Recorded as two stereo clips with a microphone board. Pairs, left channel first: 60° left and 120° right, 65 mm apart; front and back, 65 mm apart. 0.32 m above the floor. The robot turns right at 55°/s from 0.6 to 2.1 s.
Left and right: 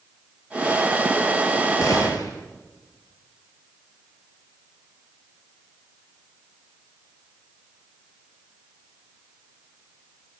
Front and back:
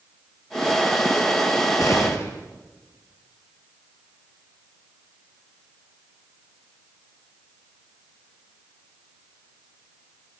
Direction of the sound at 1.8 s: 25° left.